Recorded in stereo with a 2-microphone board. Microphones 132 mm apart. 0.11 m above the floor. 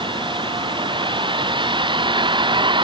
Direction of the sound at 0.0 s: 40° right (ahead or behind).